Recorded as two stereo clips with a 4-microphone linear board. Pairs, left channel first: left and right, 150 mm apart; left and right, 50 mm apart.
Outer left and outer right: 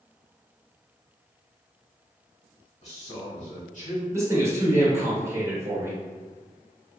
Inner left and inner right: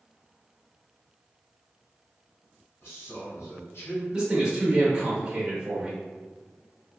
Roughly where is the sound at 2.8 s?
Left.